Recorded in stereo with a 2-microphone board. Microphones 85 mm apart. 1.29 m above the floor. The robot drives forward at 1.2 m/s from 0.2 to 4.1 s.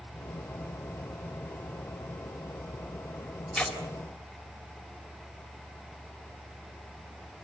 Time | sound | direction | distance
3.5 | tearing paper | 5° left (ahead or behind) | 3.5 m